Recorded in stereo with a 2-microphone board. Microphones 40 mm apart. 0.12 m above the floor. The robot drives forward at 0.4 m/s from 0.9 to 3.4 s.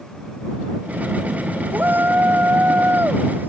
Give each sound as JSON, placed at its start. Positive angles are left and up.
{"t": 1.7, "sound": "a shout", "side_deg": -50}